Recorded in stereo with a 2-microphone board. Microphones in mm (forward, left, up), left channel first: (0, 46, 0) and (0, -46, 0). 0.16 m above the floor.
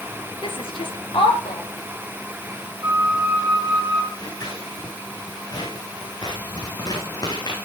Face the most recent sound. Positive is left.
turn(degrees=45)  # may be behind; listen again after turning